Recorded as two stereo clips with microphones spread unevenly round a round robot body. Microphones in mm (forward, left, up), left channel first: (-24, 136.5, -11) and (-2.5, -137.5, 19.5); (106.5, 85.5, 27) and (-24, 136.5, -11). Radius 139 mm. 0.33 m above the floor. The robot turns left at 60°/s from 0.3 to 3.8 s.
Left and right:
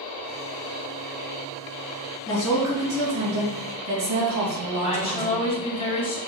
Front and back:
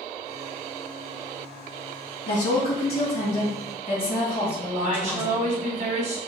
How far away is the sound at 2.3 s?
About 3.5 m.